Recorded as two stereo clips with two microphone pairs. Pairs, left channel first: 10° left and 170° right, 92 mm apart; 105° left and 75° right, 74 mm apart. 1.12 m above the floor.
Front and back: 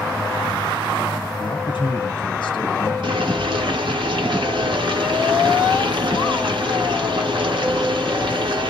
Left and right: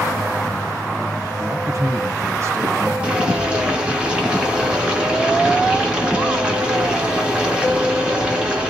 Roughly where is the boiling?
Behind right.